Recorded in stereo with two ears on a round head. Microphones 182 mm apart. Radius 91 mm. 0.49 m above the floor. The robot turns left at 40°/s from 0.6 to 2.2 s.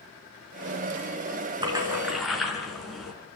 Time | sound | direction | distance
1.6 | a splash | 25° right (ahead or behind) | 4.5 m